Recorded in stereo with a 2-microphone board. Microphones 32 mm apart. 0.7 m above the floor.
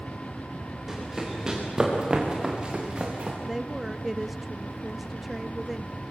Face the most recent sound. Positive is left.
turn(degrees=-5)  # may be behind; listen again after turning